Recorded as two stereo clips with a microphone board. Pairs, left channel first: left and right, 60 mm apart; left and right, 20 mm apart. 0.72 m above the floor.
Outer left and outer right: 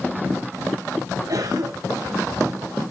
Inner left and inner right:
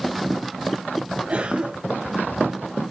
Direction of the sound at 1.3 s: 80° right.